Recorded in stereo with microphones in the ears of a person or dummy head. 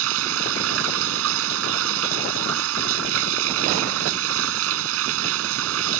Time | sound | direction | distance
0.0 | running water | 80° right | ?